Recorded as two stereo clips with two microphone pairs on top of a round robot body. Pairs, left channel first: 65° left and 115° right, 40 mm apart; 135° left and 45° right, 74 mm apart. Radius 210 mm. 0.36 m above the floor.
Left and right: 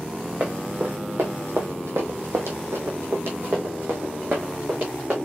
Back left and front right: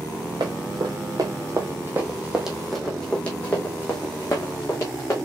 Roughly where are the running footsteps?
Right.